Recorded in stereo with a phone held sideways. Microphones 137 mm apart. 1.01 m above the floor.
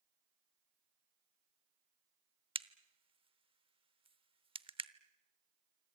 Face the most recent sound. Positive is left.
turn(degrees=-40)  # may be behind; listen again after turning